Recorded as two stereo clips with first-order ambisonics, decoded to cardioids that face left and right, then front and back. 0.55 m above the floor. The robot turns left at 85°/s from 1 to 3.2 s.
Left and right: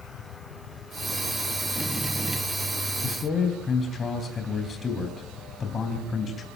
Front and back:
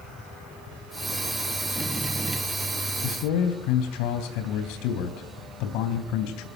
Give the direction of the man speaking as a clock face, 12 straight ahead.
11 o'clock.